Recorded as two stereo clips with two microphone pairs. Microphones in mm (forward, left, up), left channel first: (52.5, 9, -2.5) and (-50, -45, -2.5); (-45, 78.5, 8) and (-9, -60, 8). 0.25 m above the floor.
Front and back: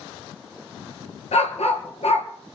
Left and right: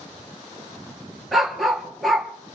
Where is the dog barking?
15° left, 2.5 m.